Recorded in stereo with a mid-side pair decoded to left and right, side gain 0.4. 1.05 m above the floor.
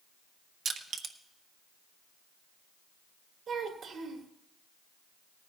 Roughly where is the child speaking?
Ahead right.